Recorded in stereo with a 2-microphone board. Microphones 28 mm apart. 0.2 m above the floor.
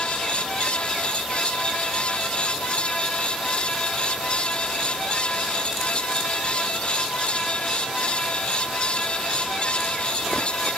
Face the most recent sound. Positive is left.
No sound to turn to.